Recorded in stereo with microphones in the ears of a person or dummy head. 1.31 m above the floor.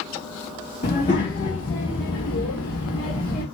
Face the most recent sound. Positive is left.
turn(degrees=70)  # may be behind; listen again after turning